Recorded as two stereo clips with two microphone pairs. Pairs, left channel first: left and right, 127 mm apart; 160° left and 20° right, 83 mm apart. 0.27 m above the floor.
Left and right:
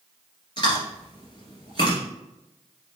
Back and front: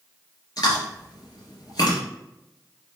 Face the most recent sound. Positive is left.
turn(degrees=135)